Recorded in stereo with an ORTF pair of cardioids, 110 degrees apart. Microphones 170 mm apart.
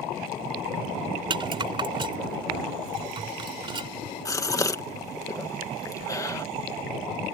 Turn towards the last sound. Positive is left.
turn(degrees=20)